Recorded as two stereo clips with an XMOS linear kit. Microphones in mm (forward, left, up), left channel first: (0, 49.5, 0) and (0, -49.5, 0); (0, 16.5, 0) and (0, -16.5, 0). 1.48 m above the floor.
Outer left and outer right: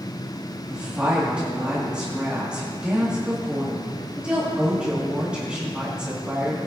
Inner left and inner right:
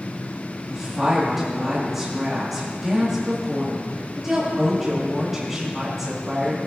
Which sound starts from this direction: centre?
A woman speaking, at 0.7 s.